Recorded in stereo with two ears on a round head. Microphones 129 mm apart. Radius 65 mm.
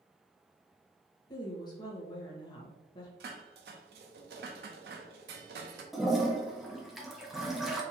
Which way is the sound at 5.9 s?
Centre (ahead or behind).